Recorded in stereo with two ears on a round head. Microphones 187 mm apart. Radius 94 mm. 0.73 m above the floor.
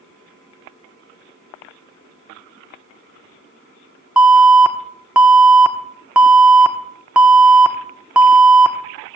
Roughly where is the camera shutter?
I don't hear a camera shutter.